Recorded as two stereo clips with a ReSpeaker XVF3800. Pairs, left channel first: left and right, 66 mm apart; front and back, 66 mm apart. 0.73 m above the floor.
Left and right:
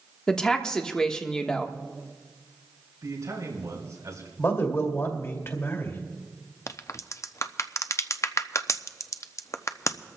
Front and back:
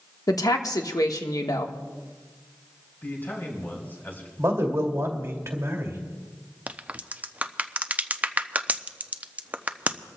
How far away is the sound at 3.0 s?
About 5 m.